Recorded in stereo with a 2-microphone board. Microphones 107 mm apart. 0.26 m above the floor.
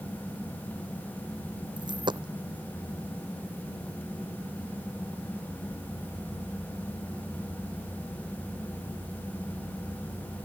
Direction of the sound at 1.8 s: 45° right (ahead or behind).